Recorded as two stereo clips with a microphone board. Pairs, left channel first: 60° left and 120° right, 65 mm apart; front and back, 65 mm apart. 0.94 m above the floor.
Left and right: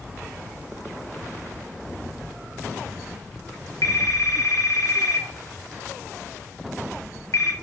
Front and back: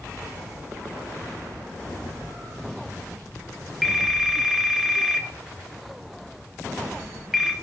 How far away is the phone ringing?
About 0.9 m.